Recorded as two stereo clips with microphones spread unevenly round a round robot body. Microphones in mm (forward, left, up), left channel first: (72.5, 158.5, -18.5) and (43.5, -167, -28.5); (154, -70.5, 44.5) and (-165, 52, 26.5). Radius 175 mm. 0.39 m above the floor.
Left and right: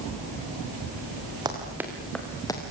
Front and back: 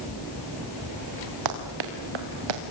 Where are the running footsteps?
175° right, 4 m; by 2.6 s 165° left, 3.5 m.